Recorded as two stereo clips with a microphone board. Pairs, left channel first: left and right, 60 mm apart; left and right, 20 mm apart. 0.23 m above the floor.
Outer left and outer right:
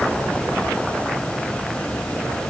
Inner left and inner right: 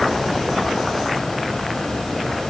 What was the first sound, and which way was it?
Only background noise.